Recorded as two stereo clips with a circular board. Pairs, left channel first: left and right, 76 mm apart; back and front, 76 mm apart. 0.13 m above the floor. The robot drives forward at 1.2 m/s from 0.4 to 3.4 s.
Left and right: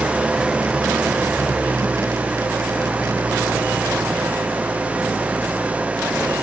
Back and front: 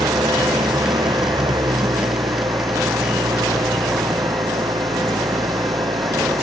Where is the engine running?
10° right; by 6.4 s 15° right.